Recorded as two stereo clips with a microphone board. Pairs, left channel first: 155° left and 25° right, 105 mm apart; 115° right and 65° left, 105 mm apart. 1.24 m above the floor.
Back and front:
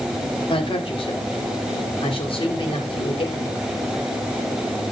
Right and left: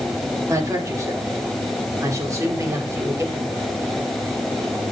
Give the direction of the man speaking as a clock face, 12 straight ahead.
8 o'clock.